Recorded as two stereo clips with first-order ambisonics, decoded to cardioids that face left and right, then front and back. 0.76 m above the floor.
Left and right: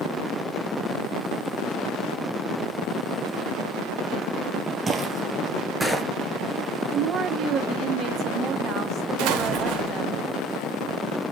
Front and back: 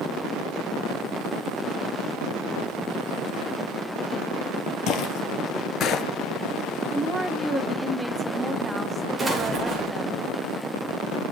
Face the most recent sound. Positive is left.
turn(degrees=-100)